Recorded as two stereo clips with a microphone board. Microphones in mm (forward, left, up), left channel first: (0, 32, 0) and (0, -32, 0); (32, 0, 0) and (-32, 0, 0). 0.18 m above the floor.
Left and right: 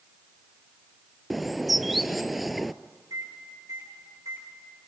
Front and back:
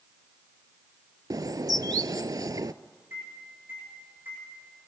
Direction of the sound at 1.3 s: Straight behind.